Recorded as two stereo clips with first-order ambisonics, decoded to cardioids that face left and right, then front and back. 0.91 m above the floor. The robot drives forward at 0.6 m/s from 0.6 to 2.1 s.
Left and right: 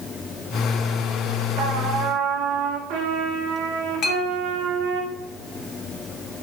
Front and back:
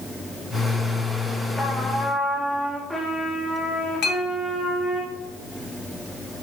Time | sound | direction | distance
1.6 | a trumpet | 80° right | 1.5 m
4.0 | a clink | 40° left | 1.2 m